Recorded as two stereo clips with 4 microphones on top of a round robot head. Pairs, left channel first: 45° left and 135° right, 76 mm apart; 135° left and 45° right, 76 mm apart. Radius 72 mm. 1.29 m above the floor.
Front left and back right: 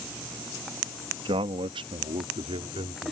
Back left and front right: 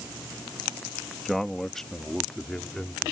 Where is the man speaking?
135° right; by 3.1 s 140° right.